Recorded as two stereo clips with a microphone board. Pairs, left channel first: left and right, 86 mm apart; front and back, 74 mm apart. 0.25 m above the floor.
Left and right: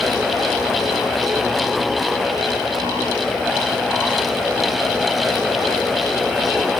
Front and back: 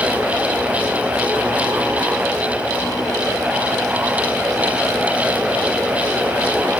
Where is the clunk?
I don't hear a clunk.